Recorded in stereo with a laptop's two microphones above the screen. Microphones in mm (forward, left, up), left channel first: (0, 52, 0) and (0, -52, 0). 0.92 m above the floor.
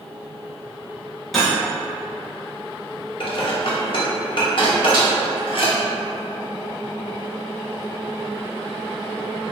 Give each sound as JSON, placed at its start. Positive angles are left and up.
{"t": 1.3, "sound": "cutlery clinking", "side_deg": 0, "distance_m": 0.7}
{"t": 3.2, "sound": "dishes clattering", "side_deg": 55, "distance_m": 0.6}
{"t": 4.9, "sound": "a snare drum", "side_deg": 40, "distance_m": 1.0}